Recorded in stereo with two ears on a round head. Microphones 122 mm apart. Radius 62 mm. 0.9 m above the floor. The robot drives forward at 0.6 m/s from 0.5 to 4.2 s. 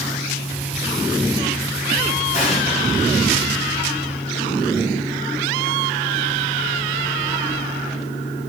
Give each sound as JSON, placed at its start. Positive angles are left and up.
{"t": 2.3, "sound": "an explosion", "side_deg": 60, "distance_m": 6.0}